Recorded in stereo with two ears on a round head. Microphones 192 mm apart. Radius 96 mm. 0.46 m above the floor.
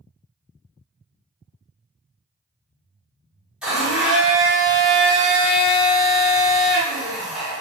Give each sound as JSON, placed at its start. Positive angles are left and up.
{"t": 3.6, "sound": "a blender", "side_deg": -5, "distance_m": 1.4}